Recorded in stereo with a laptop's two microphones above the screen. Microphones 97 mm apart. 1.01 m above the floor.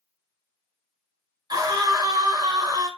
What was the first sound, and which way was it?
A scream, 45° right (ahead or behind).